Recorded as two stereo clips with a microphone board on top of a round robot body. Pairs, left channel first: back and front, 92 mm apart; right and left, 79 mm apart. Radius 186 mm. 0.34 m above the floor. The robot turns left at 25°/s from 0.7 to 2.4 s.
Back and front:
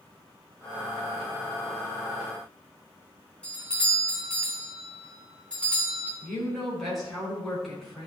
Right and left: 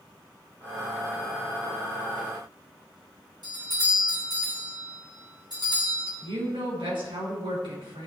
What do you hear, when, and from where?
3.4 s a doorbell: 105° left, 3.5 m
6.2 s a woman speaking: 90° left, 5 m